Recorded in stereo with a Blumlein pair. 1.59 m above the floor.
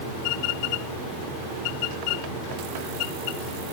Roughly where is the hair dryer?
I don't hear a hair dryer.